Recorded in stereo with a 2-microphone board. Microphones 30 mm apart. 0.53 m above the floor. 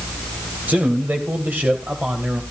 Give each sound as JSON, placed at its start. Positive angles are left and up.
{"t": 0.7, "sound": "a man speaking", "side_deg": -65, "distance_m": 3.0}